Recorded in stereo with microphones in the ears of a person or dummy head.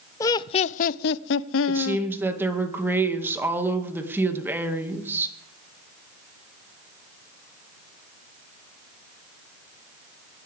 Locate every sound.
0.2 s laughter: 15° left (ahead or behind), 0.7 m; by 2.1 s 80° left, 1.0 m
1.7 s a woman speaking: 15° right (ahead or behind), 2 m